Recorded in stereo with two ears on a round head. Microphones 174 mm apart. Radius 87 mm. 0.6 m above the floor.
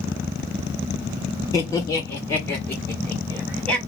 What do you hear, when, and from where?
1.5 s laughter: 20° left (ahead or behind), 1.1 m; by 3.8 s centre (ahead or behind), 1.3 m